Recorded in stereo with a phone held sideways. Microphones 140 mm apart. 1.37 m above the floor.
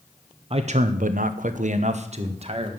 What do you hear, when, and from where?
0.5 s a man speaking: 45° right (ahead or behind), 0.8 m